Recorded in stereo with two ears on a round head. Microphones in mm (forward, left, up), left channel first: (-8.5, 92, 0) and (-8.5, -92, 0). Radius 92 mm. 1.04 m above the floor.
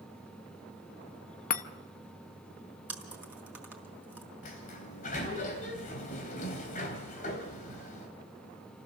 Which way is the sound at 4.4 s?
40° left (ahead or behind).